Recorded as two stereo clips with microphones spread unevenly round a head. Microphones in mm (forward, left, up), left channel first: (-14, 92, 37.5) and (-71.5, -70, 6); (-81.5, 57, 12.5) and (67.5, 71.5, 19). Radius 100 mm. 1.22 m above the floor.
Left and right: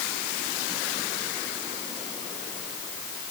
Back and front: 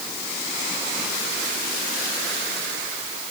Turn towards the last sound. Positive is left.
No sound to turn to.